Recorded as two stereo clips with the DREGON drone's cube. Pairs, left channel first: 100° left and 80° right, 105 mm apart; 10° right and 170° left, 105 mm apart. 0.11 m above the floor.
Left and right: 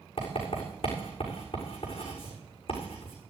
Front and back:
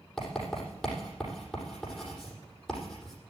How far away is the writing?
About 7 m.